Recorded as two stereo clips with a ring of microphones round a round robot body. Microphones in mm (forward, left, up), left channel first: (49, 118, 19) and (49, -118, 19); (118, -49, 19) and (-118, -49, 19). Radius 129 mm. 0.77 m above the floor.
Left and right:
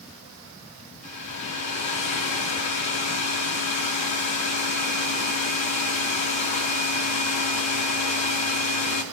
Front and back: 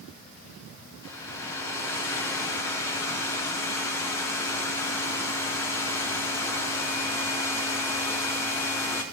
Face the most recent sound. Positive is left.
turn(degrees=80)